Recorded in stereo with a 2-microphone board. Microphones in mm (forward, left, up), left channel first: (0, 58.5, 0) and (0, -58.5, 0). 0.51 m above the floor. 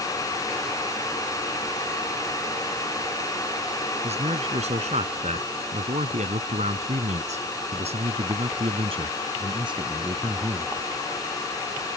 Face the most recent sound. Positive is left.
turn(degrees=-30)  # may be behind; listen again after turning